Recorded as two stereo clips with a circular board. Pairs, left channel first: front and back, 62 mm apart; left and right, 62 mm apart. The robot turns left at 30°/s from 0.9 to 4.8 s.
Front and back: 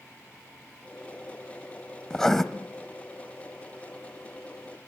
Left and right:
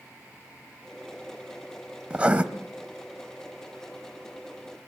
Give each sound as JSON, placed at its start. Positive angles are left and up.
{"t": 2.1, "sound": "writing", "azimuth_deg": -65, "distance_m": 1.2}